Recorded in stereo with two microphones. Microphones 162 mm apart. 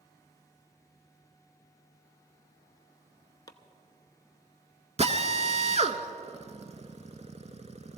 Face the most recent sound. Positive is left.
turn(degrees=-45)  # may be behind; listen again after turning